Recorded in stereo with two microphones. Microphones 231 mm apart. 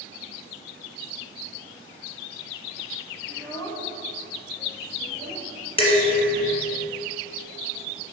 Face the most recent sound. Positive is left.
turn(degrees=25)  # may be behind; listen again after turning